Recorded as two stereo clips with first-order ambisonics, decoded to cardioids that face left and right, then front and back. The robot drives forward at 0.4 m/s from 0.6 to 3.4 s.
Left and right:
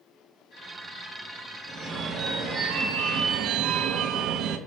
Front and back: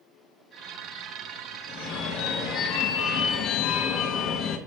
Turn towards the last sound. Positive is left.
turn(degrees=-45)